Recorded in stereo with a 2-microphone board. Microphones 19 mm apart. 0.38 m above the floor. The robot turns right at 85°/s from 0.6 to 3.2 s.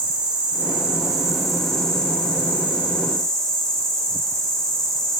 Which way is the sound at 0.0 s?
75° right.